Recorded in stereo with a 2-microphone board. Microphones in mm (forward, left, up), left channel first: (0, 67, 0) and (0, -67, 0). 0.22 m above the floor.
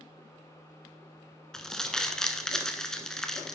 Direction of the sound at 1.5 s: 5° left (ahead or behind).